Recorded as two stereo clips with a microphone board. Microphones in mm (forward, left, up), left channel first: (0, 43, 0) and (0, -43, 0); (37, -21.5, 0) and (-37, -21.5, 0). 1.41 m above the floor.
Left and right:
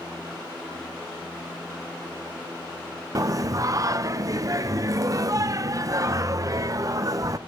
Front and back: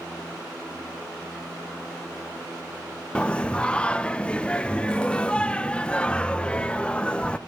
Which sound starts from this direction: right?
Singing, at 3.1 s.